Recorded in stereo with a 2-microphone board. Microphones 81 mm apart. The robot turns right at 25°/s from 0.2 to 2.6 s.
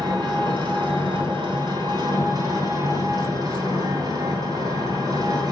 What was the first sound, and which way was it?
An engine running, 115° right.